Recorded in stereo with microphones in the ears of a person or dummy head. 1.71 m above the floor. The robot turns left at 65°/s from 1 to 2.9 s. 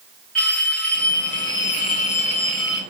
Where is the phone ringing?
5° left (ahead or behind), 0.5 m; by 2.8 s 15° left (ahead or behind), 0.5 m.